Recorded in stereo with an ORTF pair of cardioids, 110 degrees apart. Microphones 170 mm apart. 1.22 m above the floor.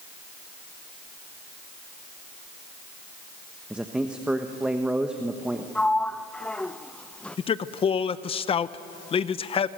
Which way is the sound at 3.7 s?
5° right.